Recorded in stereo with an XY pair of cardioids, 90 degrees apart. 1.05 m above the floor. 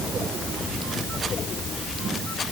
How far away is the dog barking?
No dog barking in this recording.